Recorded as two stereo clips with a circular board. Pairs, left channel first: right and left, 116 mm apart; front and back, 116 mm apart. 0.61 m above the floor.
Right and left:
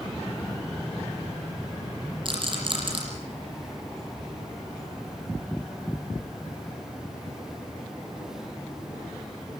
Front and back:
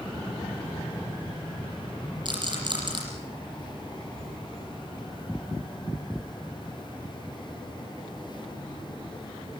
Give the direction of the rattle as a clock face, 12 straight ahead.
8 o'clock.